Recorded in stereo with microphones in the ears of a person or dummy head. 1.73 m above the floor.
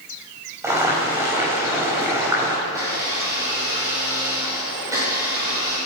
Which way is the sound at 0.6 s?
10° right (ahead or behind).